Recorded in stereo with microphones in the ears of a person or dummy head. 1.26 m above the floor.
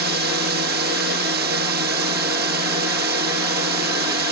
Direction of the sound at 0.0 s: 55° right (ahead or behind).